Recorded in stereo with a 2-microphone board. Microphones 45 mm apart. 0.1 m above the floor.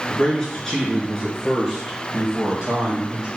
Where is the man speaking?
20° left (ahead or behind), 1.8 m; by 3.3 s 15° right (ahead or behind), 3 m.